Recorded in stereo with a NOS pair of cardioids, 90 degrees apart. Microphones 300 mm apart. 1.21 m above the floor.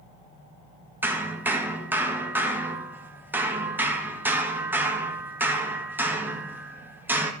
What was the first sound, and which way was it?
Hammering, 5° right.